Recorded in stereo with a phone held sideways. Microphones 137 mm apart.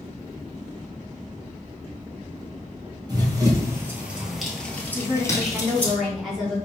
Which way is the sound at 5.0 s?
Centre (ahead or behind).